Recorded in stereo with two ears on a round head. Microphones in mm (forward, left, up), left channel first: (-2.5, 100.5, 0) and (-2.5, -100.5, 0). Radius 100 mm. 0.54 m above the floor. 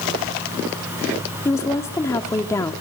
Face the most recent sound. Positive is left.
turn(degrees=15)  # may be behind; listen again after turning